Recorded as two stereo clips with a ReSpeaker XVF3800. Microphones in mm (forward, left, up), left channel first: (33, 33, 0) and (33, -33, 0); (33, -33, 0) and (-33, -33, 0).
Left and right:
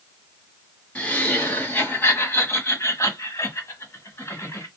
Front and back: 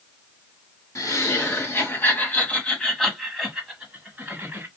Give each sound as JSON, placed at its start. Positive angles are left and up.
{"t": 0.9, "sound": "laughter", "azimuth_deg": 25, "distance_m": 1.8}